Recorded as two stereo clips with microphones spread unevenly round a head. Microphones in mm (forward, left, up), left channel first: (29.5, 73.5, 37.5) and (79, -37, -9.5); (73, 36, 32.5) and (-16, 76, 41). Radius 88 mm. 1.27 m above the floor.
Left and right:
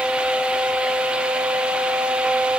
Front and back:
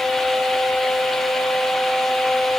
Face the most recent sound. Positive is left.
No sound to turn to.